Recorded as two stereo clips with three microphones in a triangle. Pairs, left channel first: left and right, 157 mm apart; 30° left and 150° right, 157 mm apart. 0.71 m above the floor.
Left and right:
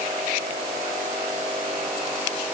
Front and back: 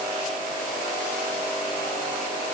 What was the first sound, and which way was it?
Only background noise.